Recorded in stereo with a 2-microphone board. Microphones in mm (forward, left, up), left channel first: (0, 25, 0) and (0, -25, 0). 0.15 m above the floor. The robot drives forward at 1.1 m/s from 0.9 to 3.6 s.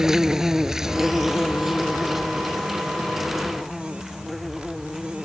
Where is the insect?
10° right (ahead or behind); by 5.2 s centre (ahead or behind).